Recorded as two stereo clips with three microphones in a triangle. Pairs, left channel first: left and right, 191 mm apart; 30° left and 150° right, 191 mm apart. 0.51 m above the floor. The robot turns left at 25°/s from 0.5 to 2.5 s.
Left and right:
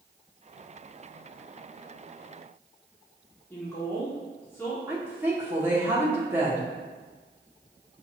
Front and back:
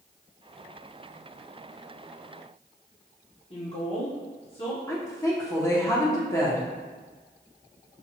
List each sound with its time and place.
3.5 s a woman speaking: 25° left, 0.8 m
4.9 s a woman speaking: 25° right, 0.7 m